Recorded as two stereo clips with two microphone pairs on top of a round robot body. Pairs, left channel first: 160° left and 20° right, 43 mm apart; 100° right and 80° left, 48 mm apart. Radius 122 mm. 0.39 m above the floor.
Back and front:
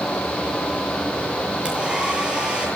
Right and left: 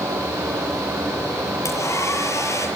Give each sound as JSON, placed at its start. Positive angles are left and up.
{"t": 1.6, "sound": "a hair dryer", "azimuth_deg": -90, "distance_m": 8.0}